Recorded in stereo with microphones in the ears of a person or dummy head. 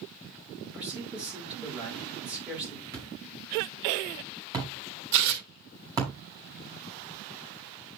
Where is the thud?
20° right (ahead or behind), 4.5 m.